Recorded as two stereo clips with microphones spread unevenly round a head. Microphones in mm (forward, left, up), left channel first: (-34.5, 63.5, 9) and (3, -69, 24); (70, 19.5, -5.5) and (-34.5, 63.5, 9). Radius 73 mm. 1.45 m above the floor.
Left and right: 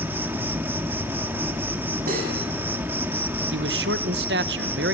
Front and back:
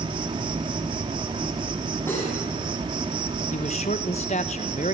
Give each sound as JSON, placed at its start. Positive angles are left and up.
{"t": 0.0, "sound": "an insect", "azimuth_deg": -150, "distance_m": 1.7}
{"t": 2.1, "sound": "cutlery clinking", "azimuth_deg": -100, "distance_m": 8.5}
{"t": 3.5, "sound": "a man speaking", "azimuth_deg": -75, "distance_m": 1.3}